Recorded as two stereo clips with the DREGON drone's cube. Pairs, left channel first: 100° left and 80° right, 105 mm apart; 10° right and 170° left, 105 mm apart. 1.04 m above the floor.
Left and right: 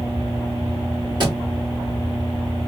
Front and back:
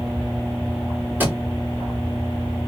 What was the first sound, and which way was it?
A thud, 120° right.